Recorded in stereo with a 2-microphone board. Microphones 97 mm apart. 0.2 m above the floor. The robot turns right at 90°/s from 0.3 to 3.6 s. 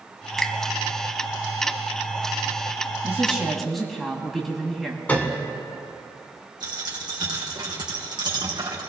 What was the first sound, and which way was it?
A finger snap, 5° left (ahead or behind).